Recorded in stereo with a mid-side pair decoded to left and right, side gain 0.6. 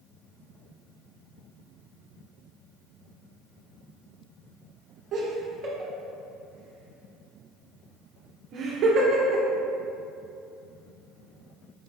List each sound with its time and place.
5.1 s laughter: 50° right, 0.7 m